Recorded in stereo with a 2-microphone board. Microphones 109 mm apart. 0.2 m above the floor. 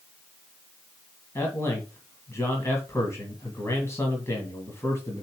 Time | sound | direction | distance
1.4 | a man speaking | 25° left (ahead or behind) | 1.8 m